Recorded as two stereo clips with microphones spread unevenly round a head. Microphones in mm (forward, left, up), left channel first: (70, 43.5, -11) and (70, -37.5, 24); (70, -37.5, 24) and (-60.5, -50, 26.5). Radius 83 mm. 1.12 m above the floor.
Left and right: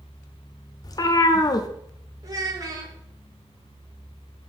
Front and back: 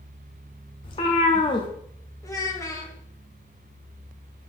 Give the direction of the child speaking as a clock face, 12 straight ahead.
2 o'clock.